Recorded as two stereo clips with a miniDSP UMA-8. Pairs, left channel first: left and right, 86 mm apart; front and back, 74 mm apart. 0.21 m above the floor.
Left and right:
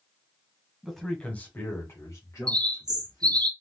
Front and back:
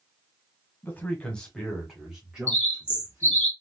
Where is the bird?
60° right, 0.8 m.